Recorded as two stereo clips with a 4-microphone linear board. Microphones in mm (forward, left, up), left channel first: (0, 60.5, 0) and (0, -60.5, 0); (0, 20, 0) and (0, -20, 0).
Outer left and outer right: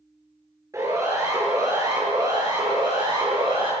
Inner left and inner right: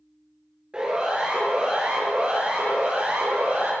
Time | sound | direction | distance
0.7 | a siren | 25° right (ahead or behind) | 9.5 m